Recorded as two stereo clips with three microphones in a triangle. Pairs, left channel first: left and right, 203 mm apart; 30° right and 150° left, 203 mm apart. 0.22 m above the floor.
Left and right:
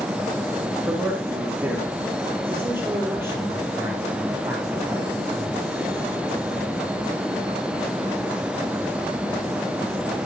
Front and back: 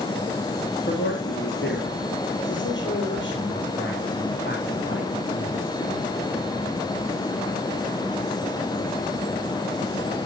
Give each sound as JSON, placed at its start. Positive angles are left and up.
{"t": 0.9, "sound": "a man speaking", "azimuth_deg": -10, "distance_m": 4.0}